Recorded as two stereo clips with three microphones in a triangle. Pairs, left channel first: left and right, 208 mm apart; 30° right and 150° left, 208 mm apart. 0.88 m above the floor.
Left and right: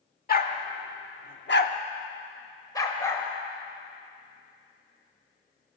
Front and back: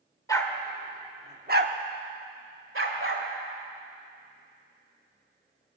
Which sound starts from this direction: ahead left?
A dog barking, at 0.3 s.